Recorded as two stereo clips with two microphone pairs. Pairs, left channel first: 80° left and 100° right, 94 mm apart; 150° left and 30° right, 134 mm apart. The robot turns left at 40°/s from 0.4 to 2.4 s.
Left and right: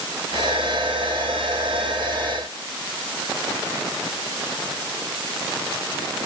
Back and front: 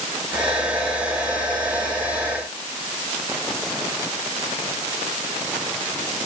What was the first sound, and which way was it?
Only background noise.